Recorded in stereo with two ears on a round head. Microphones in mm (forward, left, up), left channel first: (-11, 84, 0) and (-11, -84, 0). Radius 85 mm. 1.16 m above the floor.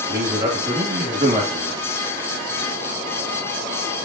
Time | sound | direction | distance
0.1 | a man speaking | 35° right (ahead or behind) | 1.5 m